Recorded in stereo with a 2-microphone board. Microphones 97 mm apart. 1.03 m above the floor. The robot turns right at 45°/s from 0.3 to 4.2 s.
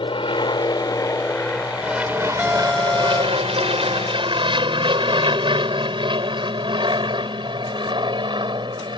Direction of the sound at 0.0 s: 60° left (ahead or behind).